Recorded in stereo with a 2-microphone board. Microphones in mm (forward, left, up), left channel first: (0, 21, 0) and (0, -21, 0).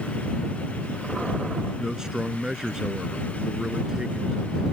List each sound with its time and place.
1.8 s a man speaking: 20° right (ahead or behind)